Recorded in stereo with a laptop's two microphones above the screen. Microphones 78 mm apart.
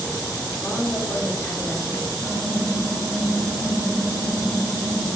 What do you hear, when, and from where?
0.6 s a woman speaking: 30° left (ahead or behind), 1.4 m
2.2 s typing on a keyboard: 65° right (ahead or behind), 1.4 m